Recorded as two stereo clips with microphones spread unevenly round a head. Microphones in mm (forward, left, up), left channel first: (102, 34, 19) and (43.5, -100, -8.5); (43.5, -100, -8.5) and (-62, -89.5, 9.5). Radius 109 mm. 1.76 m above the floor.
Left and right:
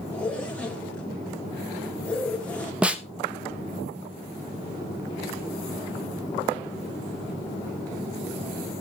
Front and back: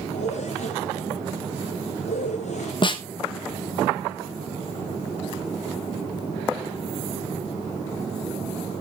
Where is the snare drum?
20° right, 1.1 m.